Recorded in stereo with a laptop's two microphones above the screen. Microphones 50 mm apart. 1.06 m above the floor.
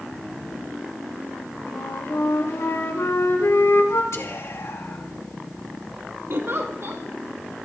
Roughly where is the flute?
Left.